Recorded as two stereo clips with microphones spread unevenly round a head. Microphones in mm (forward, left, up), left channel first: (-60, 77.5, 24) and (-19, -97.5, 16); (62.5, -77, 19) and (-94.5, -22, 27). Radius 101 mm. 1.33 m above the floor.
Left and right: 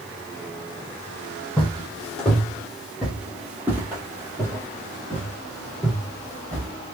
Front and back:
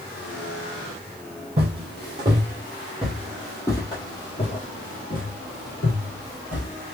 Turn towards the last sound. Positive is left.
turn(degrees=0)